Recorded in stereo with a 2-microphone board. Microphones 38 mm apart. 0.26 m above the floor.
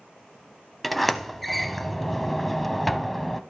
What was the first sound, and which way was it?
A sliding door, centre (ahead or behind).